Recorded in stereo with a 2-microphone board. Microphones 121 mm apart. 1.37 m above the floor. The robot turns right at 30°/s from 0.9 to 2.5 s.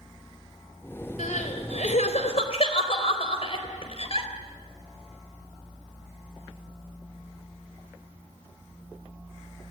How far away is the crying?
About 4 m.